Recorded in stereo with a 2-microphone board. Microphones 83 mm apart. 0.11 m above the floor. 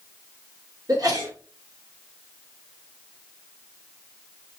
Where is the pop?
I don't hear a pop.